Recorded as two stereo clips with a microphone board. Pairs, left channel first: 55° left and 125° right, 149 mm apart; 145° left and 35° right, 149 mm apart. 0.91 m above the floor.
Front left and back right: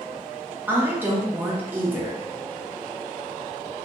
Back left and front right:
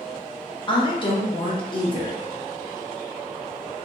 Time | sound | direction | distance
0.7 | a woman speaking | 170° left | 0.6 m